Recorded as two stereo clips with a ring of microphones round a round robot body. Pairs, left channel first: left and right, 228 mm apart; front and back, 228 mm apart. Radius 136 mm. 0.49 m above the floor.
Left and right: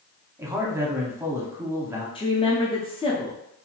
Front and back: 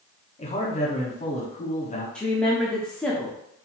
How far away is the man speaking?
About 1.0 m.